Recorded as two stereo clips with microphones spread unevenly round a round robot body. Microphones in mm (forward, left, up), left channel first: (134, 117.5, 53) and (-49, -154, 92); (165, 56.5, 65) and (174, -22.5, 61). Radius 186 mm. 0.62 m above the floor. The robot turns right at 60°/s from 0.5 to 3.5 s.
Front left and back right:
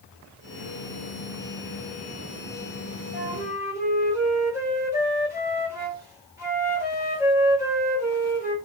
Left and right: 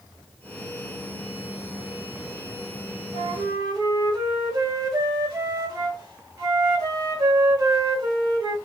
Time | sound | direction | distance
3.1 | a flute | 65° right | 1.4 m